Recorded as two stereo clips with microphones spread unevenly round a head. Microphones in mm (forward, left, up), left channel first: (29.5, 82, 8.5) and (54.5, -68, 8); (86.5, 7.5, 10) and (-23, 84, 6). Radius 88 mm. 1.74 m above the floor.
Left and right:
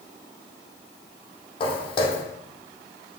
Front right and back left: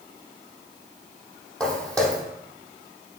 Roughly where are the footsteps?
Ahead left.